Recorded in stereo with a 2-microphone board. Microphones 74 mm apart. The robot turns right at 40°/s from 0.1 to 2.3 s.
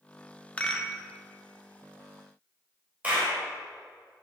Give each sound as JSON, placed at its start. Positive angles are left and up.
{"t": 0.6, "sound": "a rattle", "side_deg": 20, "distance_m": 1.2}
{"t": 3.0, "sound": "a clap", "side_deg": -20, "distance_m": 4.0}